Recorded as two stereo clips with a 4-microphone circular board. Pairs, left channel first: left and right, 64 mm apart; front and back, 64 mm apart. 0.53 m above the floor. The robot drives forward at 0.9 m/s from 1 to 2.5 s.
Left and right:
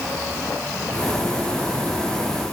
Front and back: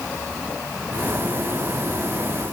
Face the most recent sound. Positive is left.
No sound to turn to.